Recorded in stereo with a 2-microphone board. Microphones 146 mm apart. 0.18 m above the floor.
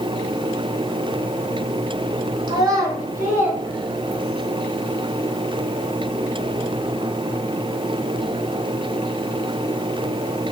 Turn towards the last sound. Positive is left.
turn(degrees=-5)  # may be behind; listen again after turning